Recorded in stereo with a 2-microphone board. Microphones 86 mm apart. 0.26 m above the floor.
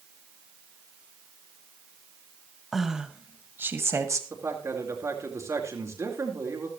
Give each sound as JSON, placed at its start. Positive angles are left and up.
{"t": 2.7, "sound": "a woman speaking", "side_deg": 0, "distance_m": 1.4}
{"t": 4.3, "sound": "a man speaking", "side_deg": -35, "distance_m": 4.0}